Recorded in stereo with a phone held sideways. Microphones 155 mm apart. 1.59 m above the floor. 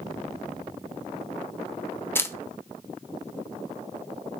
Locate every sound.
2.1 s a camera shutter: 15° left (ahead or behind), 0.7 m